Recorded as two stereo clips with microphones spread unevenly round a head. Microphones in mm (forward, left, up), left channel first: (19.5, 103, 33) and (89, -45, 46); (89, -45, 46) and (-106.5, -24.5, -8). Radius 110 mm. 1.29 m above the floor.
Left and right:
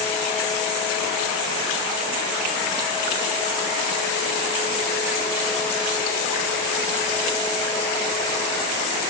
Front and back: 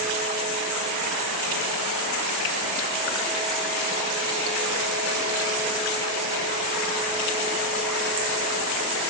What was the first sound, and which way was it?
Only background noise.